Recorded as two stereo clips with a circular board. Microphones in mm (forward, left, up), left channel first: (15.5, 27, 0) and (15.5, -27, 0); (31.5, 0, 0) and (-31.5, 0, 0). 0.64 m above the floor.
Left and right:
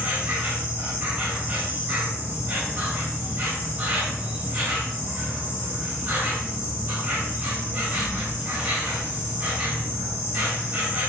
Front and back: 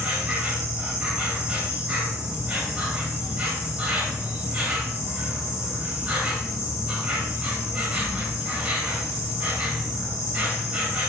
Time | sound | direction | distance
0.0 | an insect | 125° right | 0.9 m